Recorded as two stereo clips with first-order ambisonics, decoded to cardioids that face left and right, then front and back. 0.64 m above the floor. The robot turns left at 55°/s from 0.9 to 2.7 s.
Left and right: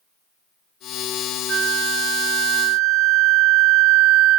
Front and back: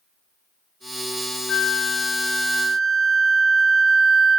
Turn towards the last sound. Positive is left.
turn(degrees=-115)